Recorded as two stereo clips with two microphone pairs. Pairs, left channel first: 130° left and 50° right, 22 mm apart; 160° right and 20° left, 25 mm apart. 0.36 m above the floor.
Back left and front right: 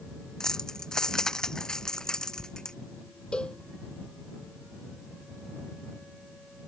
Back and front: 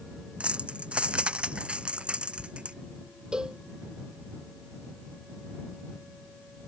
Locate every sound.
0.4 s keys jangling: 65° left; by 2.8 s 70° left
3.3 s a cowbell: 85° left